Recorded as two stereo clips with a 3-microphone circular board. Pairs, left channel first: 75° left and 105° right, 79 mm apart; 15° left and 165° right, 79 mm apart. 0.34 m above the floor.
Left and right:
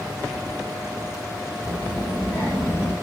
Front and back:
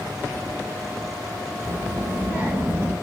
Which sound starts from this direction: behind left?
A child speaking, at 1.6 s.